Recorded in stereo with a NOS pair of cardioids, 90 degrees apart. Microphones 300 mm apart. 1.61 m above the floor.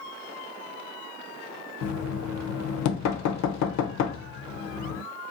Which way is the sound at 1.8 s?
65° left.